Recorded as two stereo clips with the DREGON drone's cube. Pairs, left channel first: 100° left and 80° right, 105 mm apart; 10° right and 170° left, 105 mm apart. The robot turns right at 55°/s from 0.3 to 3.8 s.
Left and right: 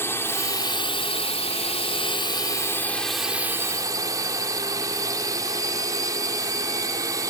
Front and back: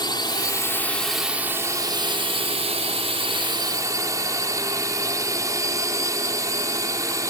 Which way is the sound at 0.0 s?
35° left.